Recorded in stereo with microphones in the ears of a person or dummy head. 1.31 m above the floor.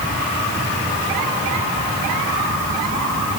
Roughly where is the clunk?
I don't hear a clunk.